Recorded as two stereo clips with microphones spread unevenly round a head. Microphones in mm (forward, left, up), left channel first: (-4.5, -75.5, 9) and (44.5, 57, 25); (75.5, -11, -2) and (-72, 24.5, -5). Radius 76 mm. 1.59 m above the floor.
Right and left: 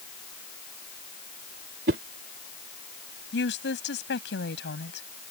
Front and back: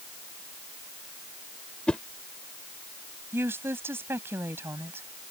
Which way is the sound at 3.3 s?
115° right.